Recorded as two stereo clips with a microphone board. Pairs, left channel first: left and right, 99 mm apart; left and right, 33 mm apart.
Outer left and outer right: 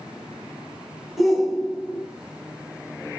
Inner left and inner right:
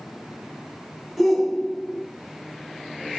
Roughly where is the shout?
Centre.